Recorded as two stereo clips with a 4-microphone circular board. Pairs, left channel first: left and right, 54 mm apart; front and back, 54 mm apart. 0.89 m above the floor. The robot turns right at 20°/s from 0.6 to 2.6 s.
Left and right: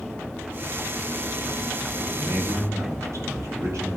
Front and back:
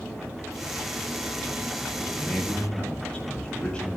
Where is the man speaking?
85° right, 6.5 m; by 4.0 s 75° right, 6.5 m.